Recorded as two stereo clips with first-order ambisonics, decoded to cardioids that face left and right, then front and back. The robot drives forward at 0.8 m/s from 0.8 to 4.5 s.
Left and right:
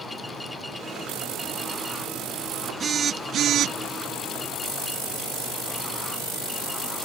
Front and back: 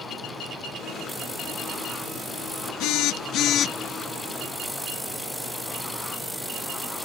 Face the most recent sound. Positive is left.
turn(degrees=-110)